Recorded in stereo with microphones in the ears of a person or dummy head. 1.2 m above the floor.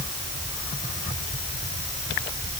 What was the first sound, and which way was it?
Only background noise.